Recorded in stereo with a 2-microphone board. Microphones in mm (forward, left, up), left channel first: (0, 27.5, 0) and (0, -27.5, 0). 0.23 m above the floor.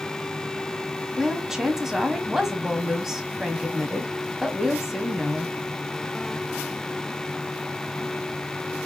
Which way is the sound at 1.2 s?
10° right (ahead or behind).